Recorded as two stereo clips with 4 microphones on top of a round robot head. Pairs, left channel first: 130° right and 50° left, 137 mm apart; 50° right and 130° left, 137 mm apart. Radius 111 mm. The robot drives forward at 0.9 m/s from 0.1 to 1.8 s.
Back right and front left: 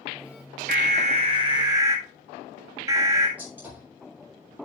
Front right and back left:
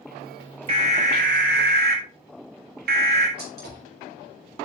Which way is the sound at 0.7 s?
80° left.